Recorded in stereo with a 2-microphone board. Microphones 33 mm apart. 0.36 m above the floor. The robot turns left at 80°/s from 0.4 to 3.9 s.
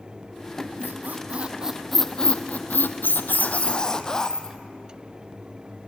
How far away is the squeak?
About 0.9 m.